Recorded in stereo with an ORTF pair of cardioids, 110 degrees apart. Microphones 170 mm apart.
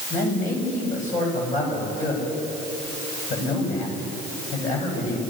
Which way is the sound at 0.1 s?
50° left.